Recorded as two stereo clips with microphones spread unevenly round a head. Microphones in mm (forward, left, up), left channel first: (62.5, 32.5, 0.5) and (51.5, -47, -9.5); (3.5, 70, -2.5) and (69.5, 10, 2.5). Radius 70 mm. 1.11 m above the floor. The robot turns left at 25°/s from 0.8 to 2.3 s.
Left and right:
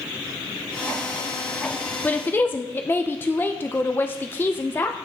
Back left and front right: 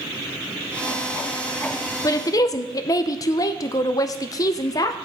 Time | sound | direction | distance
2.0 | a woman speaking | 160° left | 0.7 m